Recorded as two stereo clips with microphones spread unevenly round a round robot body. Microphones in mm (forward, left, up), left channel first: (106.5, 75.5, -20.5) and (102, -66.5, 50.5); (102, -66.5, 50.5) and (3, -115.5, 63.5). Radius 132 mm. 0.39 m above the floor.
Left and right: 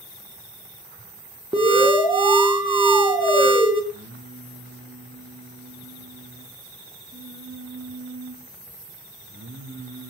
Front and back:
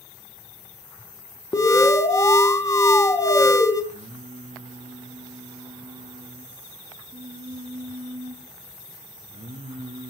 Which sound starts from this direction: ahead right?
An alarm, at 1.5 s.